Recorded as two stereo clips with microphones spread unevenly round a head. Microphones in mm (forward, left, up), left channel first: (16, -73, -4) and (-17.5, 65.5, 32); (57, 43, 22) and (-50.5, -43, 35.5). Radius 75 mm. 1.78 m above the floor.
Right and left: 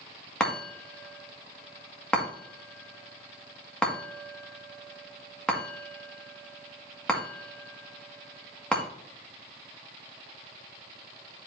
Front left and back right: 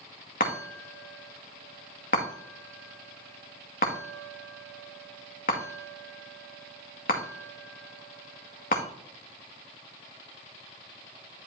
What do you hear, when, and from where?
0.4 s a chime: 15° left, 2 m